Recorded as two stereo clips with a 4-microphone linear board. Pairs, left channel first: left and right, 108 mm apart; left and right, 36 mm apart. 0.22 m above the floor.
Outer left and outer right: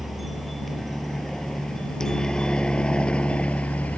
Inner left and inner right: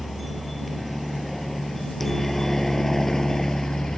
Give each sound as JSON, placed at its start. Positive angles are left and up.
{"t": 0.0, "sound": "a helicopter", "side_deg": 0}